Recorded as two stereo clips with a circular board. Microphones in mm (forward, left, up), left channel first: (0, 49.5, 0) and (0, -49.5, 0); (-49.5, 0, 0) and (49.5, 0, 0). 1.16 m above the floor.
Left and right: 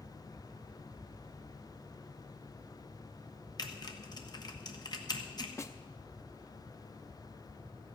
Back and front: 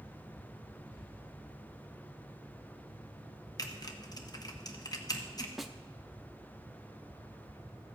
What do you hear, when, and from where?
3.6 s typing on a keyboard: 135° left, 1.1 m
5.6 s a snare drum: 85° left, 0.6 m